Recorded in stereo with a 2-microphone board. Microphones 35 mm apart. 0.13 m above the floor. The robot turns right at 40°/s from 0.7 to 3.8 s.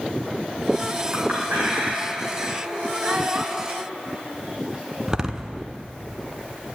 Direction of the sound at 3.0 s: 45° right (ahead or behind).